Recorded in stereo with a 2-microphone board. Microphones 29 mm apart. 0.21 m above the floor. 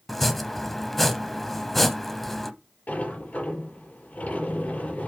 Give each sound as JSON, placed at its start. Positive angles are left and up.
{"t": 0.1, "sound": "chopping", "side_deg": 5, "distance_m": 0.7}
{"t": 2.9, "sound": "a sliding door", "side_deg": 60, "distance_m": 4.5}